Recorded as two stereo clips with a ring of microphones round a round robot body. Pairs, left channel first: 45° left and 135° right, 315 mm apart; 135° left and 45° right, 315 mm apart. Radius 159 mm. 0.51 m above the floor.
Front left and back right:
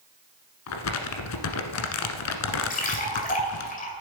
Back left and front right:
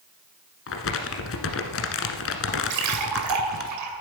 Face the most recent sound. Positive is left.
turn(degrees=-20)